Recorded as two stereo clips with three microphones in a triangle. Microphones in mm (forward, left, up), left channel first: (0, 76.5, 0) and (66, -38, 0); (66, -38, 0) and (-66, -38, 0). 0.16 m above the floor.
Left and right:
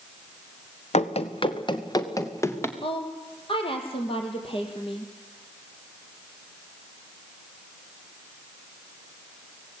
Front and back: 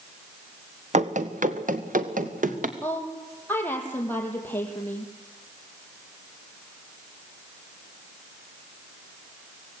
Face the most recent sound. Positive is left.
turn(degrees=75)